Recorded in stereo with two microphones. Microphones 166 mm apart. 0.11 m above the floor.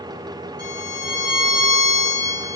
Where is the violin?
35° left (ahead or behind), 2.5 m.